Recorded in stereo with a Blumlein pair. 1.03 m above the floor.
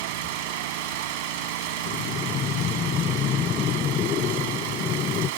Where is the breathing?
30° left.